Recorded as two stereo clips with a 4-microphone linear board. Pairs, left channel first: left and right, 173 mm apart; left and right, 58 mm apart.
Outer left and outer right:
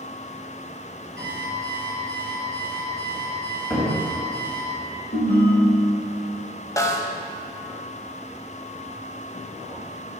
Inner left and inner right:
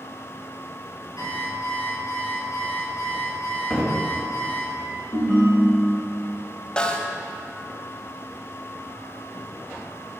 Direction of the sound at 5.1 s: 40° left (ahead or behind).